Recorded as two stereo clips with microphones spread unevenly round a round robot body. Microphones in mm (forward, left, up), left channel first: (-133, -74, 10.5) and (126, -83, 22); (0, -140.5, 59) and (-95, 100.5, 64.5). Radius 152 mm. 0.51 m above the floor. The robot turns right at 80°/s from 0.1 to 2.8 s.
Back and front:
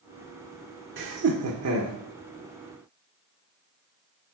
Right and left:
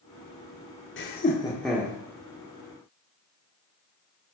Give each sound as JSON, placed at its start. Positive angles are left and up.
{"t": 1.0, "sound": "laughter", "azimuth_deg": -35, "distance_m": 1.3}